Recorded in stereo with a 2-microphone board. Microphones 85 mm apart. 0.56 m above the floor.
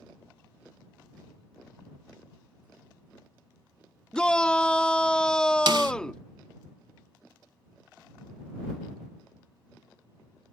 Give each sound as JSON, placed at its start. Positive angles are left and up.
{"t": 4.1, "sound": "a shout", "side_deg": 10}
{"t": 5.7, "sound": "a snare drum", "side_deg": -65}